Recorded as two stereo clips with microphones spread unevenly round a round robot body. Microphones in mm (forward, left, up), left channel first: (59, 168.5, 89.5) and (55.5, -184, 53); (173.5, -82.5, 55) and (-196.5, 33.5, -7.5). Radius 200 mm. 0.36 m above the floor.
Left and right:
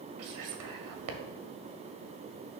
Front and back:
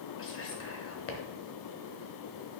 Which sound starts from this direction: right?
Whispering, at 0.2 s.